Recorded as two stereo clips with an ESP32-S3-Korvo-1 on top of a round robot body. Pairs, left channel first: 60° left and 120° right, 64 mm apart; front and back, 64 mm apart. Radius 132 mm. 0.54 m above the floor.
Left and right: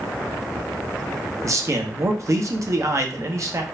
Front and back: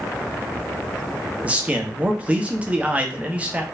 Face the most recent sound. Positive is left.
turn(degrees=-115)